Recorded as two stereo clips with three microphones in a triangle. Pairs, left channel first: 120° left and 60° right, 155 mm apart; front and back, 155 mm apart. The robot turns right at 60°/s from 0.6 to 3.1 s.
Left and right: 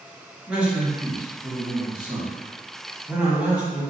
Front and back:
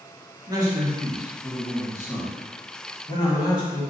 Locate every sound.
0.5 s a man speaking: 135° right, 1.1 m; by 3.8 s 15° left, 1.1 m